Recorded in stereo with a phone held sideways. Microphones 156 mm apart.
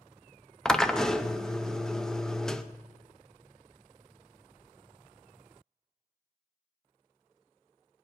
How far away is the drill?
About 0.7 m.